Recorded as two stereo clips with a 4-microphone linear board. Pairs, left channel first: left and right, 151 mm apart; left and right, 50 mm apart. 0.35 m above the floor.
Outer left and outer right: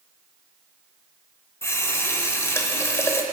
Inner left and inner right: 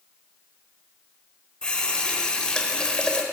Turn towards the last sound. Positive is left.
turn(degrees=20)  # may be behind; listen again after turning